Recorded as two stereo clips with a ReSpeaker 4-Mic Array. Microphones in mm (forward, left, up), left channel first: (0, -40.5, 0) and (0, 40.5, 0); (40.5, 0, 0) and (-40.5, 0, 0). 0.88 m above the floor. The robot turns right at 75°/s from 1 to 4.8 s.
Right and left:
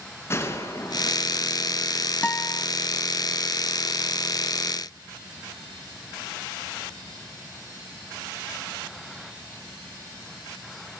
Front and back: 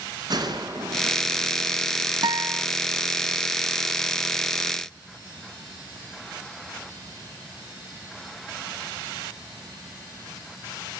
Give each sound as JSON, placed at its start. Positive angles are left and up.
{"t": 0.3, "sound": "a gunshot", "azimuth_deg": -150, "distance_m": 3.5}
{"t": 2.2, "sound": "a guitar", "azimuth_deg": -160, "distance_m": 0.7}